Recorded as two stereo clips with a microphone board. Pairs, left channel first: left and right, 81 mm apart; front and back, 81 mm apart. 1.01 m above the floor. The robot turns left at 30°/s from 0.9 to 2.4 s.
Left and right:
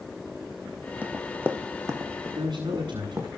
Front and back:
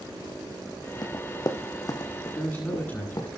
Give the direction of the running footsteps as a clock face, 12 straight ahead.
1 o'clock.